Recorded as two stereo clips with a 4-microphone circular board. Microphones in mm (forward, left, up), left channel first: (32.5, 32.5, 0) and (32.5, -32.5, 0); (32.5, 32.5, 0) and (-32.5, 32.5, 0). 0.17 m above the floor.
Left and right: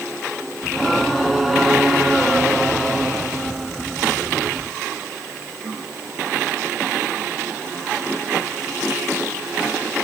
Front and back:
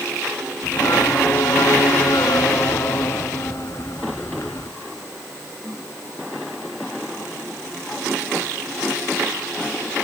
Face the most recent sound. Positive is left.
turn(degrees=0)